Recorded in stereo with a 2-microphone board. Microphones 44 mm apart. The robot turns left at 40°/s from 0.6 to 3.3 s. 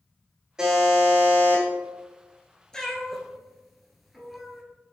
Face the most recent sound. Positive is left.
turn(degrees=0)  # may be behind; listen again after turning